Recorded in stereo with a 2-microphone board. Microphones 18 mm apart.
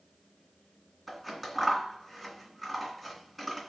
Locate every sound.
1.1 s scissors: centre (ahead or behind), 2.0 m